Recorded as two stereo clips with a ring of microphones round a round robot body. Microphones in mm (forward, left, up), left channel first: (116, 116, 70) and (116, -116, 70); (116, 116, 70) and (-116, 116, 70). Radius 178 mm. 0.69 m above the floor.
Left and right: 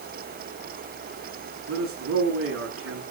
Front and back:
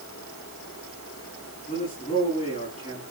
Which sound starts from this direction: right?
A man speaking, at 1.7 s.